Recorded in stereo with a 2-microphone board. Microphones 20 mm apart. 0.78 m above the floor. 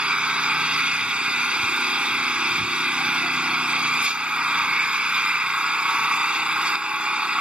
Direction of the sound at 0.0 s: 70° right (ahead or behind).